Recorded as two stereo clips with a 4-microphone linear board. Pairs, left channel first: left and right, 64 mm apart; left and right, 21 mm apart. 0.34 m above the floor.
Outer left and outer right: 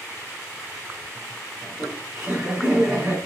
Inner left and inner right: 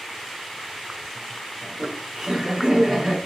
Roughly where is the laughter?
Right.